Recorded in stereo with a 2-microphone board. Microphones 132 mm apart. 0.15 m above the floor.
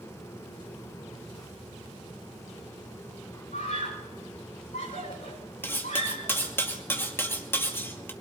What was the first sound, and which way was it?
A scream, 75° left (ahead or behind).